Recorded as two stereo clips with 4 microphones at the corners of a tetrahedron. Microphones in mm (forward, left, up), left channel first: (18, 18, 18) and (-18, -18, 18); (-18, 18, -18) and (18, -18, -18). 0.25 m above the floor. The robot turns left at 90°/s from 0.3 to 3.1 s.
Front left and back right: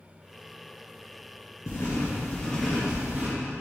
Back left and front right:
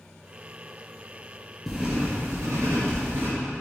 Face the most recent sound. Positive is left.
turn(degrees=-80)